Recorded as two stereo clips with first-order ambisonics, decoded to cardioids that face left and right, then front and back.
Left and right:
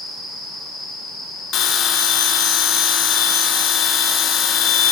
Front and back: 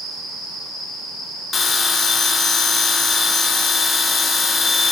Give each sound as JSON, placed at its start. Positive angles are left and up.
{"t": 1.5, "sound": "a bell", "azimuth_deg": 65, "distance_m": 0.6}